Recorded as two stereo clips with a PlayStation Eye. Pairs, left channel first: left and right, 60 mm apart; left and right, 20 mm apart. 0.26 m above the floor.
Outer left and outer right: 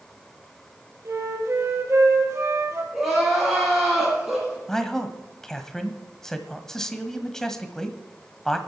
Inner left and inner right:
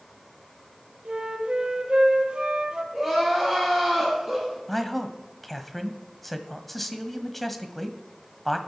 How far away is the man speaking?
About 1.3 m.